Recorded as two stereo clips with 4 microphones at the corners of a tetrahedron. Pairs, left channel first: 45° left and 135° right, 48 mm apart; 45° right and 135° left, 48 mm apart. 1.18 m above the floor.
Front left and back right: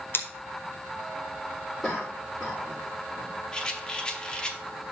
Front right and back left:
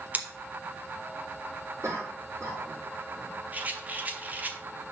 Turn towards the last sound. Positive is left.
turn(degrees=105)